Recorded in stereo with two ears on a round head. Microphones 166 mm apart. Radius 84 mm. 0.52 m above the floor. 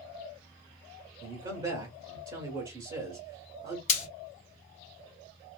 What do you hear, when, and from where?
1.2 s a man speaking: 25° right (ahead or behind), 1.1 m
3.9 s frying: 40° left (ahead or behind), 1.2 m